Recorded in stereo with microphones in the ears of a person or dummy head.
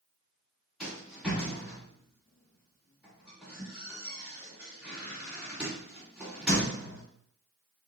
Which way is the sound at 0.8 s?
Centre (ahead or behind).